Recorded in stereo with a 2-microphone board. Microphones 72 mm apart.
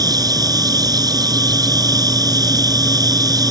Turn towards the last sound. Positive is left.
turn(degrees=-60)  # may be behind; listen again after turning